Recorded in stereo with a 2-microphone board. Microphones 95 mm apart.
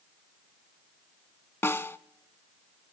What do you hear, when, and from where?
1.6 s a snare drum: 25° left (ahead or behind), 0.7 m